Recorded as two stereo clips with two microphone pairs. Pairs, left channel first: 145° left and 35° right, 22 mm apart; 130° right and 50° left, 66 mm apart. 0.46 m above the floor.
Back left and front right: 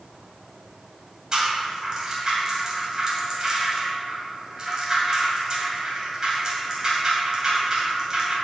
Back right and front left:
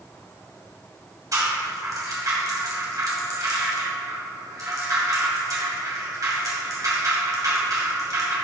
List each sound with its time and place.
1.3 s a rattle: 25° left, 2.5 m